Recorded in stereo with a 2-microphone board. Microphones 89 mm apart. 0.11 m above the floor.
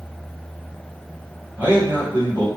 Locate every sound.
1.6 s a man speaking: 20° right (ahead or behind), 1.8 m